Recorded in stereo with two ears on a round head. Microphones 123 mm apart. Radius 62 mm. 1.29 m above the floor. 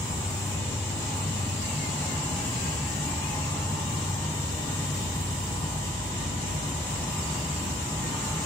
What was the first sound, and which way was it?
An insect, 15° left (ahead or behind).